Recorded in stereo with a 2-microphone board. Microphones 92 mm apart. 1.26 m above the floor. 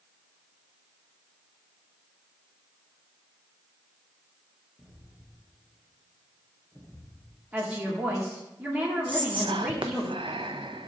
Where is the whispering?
70° right (ahead or behind), 0.6 m.